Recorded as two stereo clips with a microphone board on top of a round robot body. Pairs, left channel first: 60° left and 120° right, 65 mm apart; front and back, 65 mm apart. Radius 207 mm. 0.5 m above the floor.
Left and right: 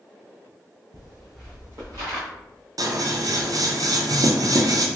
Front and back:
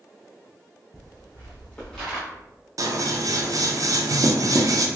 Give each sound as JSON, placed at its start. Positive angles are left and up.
{"t": 0.9, "sound": "footsteps", "azimuth_deg": 50, "distance_m": 0.8}
{"t": 2.8, "sound": "scissors", "azimuth_deg": -150, "distance_m": 0.6}